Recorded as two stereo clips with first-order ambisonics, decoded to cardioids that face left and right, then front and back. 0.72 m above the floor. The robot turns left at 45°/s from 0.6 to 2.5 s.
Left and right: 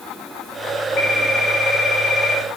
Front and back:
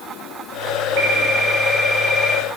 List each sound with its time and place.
1.0 s a phone ringing: 150° left, 6 m; by 2.4 s 85° left, 6 m